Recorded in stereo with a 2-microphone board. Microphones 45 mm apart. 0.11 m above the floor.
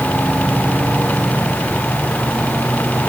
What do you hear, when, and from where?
Only background noise.